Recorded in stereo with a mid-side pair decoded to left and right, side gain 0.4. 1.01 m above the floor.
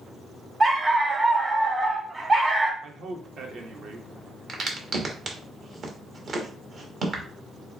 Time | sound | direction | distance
0.6 | a dog barking | 30° right | 1.1 m
2.8 | a man speaking | 65° right | 1.3 m
4.5 | a crack | 55° right | 1.3 m